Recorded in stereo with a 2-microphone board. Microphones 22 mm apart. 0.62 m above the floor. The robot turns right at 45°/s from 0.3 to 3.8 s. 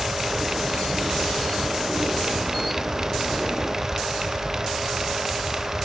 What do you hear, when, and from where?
Only background noise.